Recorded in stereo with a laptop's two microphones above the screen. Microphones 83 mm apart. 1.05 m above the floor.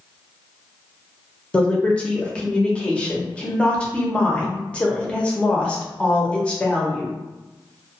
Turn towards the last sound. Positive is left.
turn(degrees=10)  # may be behind; listen again after turning